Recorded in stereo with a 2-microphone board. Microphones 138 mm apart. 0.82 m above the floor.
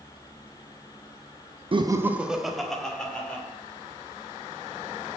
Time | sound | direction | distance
1.7 | laughter | 40° right (ahead or behind) | 0.5 m